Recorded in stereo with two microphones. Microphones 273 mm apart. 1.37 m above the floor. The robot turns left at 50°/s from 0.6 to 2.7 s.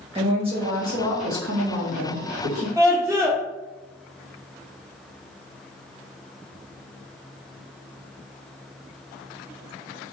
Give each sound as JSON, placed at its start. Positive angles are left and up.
{"t": 0.1, "sound": "a woman speaking", "azimuth_deg": -20, "distance_m": 1.4}
{"t": 2.8, "sound": "a scream", "side_deg": -10, "distance_m": 0.5}